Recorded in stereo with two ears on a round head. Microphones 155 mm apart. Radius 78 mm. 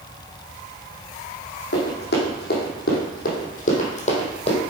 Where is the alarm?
No alarm in this recording.